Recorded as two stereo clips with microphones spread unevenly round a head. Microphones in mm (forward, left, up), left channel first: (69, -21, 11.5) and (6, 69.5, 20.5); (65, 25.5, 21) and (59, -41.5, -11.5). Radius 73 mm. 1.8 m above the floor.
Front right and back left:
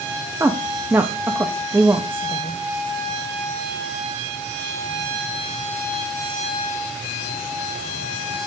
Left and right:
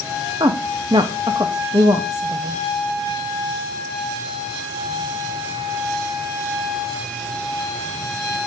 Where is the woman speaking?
165° right, 0.5 m.